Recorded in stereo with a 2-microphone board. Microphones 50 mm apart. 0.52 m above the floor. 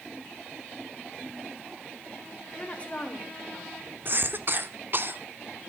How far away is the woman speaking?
About 2.5 m.